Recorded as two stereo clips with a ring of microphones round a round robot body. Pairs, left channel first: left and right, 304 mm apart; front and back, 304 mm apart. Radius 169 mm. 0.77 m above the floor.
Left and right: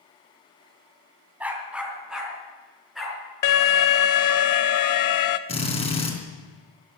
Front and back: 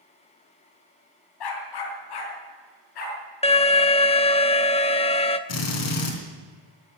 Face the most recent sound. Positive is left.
turn(degrees=20)